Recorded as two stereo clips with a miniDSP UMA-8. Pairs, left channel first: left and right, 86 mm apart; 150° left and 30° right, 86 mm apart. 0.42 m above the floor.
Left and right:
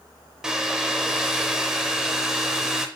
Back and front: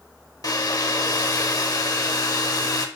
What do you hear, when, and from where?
0.4 s a hair dryer: 170° right, 0.6 m